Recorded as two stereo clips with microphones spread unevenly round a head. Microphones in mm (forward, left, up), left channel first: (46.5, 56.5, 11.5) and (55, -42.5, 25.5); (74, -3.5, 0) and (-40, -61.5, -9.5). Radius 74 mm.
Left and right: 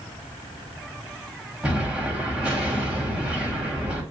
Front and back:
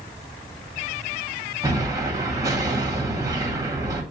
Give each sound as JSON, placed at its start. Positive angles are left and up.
{"t": 1.6, "sound": "an explosion", "azimuth_deg": -130, "distance_m": 1.6}